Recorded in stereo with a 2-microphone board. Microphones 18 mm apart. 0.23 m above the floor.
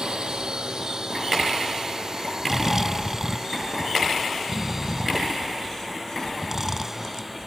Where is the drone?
50° right (ahead or behind); by 7.5 s 10° right (ahead or behind).